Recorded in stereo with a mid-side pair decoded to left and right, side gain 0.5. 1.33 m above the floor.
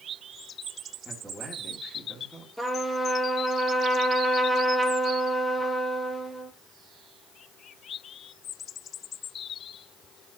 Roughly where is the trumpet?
Ahead.